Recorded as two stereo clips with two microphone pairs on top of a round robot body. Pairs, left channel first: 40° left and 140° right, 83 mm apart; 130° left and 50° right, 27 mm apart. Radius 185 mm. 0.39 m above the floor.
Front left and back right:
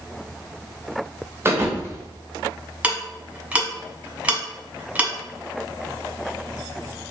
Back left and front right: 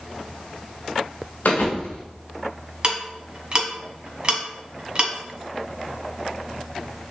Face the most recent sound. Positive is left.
turn(degrees=-70)